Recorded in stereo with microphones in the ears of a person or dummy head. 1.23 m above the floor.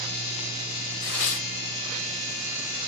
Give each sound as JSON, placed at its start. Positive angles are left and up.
{"t": 1.0, "sound": "tearing paper", "side_deg": 60, "distance_m": 1.6}